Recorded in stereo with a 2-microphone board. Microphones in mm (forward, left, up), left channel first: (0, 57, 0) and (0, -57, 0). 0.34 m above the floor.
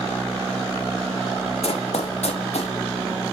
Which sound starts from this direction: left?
Running footsteps, at 1.6 s.